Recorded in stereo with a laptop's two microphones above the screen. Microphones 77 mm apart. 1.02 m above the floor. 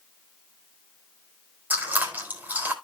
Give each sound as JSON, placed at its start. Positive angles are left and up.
{"t": 1.7, "sound": "chewing", "side_deg": -25, "distance_m": 4.5}